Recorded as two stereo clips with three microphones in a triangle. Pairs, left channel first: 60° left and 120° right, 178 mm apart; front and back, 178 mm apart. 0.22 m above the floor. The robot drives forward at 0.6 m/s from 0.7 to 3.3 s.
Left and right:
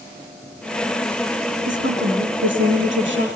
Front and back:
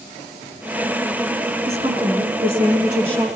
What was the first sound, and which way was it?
A woman speaking, 120° right.